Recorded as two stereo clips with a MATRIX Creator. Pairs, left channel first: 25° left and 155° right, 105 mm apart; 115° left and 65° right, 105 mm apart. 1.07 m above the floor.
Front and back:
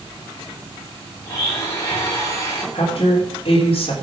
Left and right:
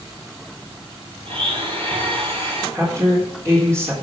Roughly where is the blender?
Ahead right.